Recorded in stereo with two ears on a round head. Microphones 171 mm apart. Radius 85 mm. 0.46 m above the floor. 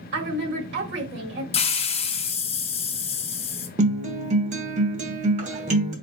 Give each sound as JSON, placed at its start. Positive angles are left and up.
{"t": 0.1, "sound": "a woman speaking", "side_deg": -65, "distance_m": 1.7}
{"t": 1.5, "sound": "a hiss", "side_deg": 30, "distance_m": 0.7}
{"t": 3.8, "sound": "a guitar", "side_deg": -40, "distance_m": 1.0}